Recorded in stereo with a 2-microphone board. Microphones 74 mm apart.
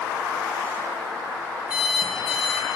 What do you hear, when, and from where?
1.7 s an alarm clock: 15° right (ahead or behind), 3 m